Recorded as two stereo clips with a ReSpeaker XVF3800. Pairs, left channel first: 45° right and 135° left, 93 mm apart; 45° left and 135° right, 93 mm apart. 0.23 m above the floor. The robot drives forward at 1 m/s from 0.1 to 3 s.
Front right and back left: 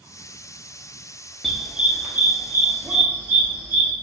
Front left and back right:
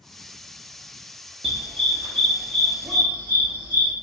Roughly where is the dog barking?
Behind right.